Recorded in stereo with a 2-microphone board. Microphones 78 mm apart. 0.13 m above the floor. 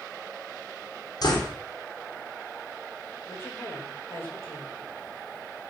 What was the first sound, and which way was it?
A door slam, 55° left (ahead or behind).